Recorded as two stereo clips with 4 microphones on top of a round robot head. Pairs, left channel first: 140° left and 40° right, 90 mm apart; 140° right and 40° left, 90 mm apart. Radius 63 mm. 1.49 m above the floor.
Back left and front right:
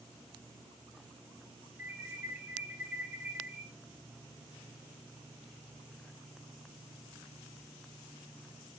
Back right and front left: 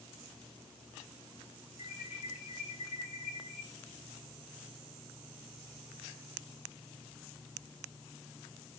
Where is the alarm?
110° right, 1.7 m.